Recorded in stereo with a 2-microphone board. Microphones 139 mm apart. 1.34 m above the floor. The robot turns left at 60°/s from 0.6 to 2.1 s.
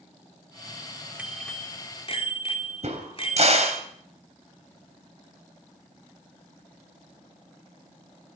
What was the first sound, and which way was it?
A bicycle bell, 170° right.